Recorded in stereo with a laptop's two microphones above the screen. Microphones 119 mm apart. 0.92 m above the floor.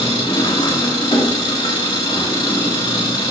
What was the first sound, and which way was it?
An engine running, 40° left (ahead or behind).